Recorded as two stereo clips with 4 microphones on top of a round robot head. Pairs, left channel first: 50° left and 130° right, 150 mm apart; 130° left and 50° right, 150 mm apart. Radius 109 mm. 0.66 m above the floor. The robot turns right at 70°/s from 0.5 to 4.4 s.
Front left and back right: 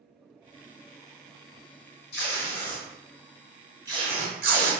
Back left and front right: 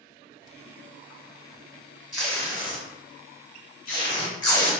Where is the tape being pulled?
35° left, 1.0 m; by 4.7 s 165° right, 1.0 m.